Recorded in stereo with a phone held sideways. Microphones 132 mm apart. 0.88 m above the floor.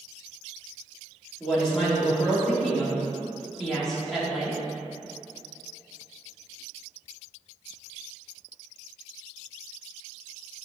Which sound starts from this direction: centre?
A woman speaking, at 1.4 s.